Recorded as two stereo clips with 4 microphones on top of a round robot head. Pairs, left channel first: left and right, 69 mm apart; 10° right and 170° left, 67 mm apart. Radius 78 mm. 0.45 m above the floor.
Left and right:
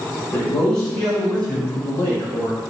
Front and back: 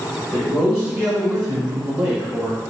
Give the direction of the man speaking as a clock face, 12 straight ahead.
8 o'clock.